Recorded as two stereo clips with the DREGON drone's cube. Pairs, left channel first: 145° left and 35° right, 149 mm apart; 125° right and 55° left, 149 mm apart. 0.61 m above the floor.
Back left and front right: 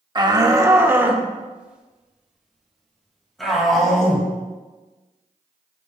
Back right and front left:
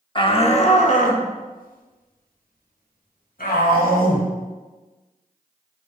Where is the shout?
80° right, 0.9 m; by 4.3 s 130° right, 3.5 m.